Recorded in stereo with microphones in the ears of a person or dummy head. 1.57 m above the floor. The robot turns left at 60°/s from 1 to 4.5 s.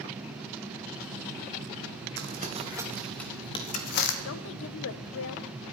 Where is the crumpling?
55° right (ahead or behind), 1.5 m; by 4.2 s 65° left (ahead or behind), 1.5 m.